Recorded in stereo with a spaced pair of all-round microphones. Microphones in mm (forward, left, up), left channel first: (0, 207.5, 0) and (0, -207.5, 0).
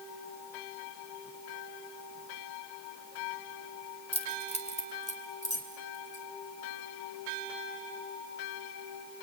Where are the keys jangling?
15° left (ahead or behind), 2.5 m.